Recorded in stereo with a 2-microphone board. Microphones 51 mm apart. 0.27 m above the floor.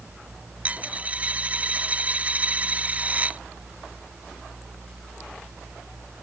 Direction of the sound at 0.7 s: 30° right (ahead or behind).